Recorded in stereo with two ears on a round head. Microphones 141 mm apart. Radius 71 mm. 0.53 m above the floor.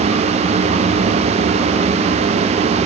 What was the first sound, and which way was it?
Only background noise.